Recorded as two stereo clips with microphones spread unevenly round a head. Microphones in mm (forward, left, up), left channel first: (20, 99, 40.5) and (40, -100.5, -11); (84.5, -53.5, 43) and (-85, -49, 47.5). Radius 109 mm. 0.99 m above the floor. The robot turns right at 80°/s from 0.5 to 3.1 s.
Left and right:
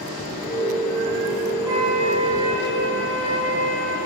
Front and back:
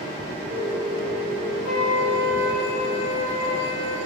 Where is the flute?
165° right, 4.5 m; by 4.0 s 50° right, 4.5 m.